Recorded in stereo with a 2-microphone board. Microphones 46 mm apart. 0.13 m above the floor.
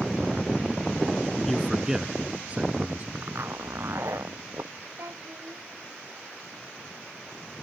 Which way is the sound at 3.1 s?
70° right (ahead or behind).